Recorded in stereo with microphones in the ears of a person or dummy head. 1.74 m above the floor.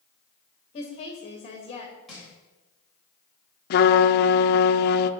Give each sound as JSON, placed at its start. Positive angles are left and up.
{"t": 0.7, "sound": "a woman speaking", "side_deg": 30, "distance_m": 2.5}
{"t": 2.1, "sound": "crushing", "side_deg": 0, "distance_m": 4.0}
{"t": 3.7, "sound": "a trumpet", "side_deg": 60, "distance_m": 0.7}